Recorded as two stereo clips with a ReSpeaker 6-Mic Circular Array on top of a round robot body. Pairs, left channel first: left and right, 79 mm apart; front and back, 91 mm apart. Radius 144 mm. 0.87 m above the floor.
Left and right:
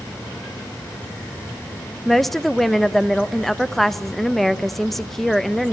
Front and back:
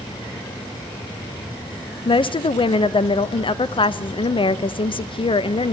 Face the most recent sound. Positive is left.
turn(degrees=0)